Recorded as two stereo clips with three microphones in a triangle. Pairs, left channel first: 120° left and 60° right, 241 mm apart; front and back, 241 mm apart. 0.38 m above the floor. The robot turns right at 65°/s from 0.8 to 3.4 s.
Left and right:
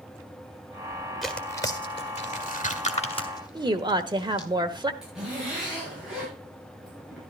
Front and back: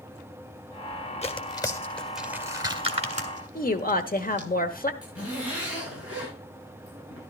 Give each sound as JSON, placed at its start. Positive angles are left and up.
{"t": 1.2, "sound": "tearing paper", "azimuth_deg": 30, "distance_m": 1.6}
{"t": 3.5, "sound": "a woman speaking", "azimuth_deg": 0, "distance_m": 1.2}
{"t": 5.0, "sound": "a zipper", "azimuth_deg": 30, "distance_m": 8.5}